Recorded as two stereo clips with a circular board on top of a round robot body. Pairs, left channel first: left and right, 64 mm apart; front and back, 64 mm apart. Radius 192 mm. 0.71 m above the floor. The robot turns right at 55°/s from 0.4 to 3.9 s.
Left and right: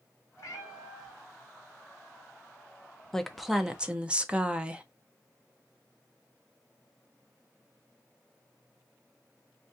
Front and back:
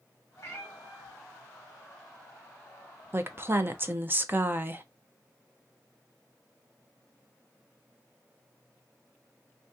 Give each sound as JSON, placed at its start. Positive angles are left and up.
{"t": 0.4, "sound": "a cat meowing", "azimuth_deg": 50, "distance_m": 1.4}
{"t": 3.1, "sound": "a woman speaking", "azimuth_deg": 165, "distance_m": 0.8}